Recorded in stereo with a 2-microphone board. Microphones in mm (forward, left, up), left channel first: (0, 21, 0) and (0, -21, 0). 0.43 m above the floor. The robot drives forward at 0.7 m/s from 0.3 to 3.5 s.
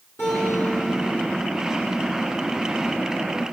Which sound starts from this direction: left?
A guitar, at 0.2 s.